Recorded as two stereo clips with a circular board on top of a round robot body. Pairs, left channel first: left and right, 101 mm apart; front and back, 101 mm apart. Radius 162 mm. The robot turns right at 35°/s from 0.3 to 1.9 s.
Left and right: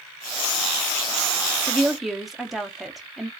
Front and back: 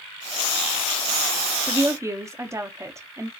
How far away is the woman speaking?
About 0.8 m.